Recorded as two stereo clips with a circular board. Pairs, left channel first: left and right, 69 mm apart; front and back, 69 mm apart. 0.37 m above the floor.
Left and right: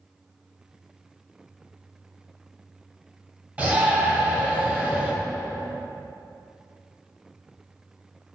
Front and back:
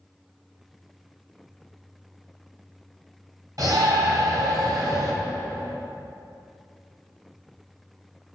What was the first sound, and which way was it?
A shout, 155° right.